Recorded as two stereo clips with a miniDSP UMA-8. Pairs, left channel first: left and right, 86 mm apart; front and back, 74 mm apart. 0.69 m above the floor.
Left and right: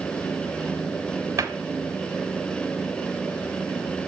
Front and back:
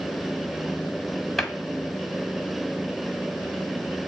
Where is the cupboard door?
85° right, 0.9 m.